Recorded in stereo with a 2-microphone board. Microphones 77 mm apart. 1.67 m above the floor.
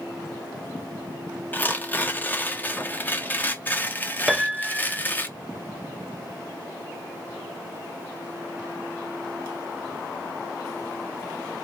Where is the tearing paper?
25° left (ahead or behind), 0.6 m.